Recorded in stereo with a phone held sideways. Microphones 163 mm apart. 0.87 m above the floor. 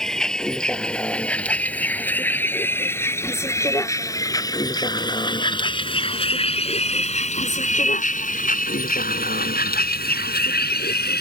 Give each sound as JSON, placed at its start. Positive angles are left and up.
{"t": 0.0, "sound": "a vehicle", "side_deg": 5}